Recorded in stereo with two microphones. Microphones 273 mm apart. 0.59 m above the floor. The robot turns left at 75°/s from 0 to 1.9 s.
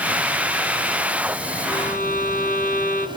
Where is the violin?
15° left (ahead or behind), 1.5 m; by 3.1 s 30° left (ahead or behind), 1.5 m.